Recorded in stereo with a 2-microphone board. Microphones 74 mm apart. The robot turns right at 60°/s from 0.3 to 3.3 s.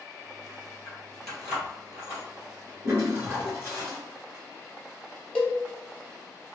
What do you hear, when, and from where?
0.8 s keys jangling: 25° left (ahead or behind), 1.7 m; by 3.8 s 45° right (ahead or behind), 1.7 m
2.8 s a toilet flushing: 35° right (ahead or behind), 1.9 m; by 4.0 s 25° right (ahead or behind), 1.9 m
5.3 s a cowbell: 10° left (ahead or behind), 0.7 m